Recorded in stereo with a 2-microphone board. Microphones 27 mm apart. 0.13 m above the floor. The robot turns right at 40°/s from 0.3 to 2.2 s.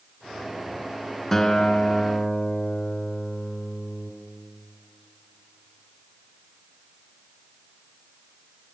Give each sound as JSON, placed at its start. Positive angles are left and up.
{"t": 1.3, "sound": "a guitar", "side_deg": 10, "distance_m": 1.8}